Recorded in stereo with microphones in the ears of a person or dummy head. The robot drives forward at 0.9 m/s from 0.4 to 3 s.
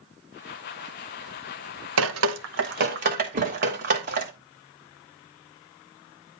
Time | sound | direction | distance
2.0 | dripping | 75° right (ahead or behind) | 0.9 m
3.3 | a thud | 45° right (ahead or behind) | 0.7 m